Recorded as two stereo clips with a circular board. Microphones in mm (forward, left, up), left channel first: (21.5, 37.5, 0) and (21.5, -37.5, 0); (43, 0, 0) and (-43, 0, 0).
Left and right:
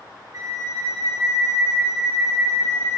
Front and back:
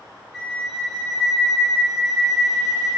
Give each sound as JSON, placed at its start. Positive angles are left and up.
{"t": 0.3, "sound": "a flute", "azimuth_deg": -90, "distance_m": 0.8}